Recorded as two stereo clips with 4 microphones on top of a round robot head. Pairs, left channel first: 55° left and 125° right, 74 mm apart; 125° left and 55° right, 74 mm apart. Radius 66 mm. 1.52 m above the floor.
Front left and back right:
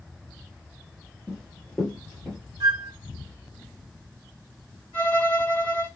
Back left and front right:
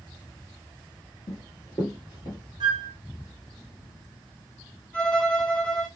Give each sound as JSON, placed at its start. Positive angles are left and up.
{"t": 1.3, "sound": "running footsteps", "azimuth_deg": 130, "distance_m": 1.9}
{"t": 2.6, "sound": "a flute", "azimuth_deg": -85, "distance_m": 0.7}
{"t": 4.9, "sound": "a violin", "azimuth_deg": 65, "distance_m": 1.4}